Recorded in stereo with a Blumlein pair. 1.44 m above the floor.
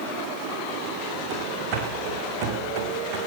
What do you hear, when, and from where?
1.3 s running footsteps: 35° right, 5.5 m; by 3.2 s 40° right, 5.5 m